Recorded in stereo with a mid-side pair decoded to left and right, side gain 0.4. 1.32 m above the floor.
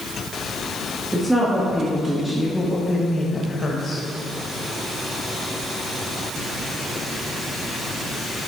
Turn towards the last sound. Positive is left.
turn(degrees=50)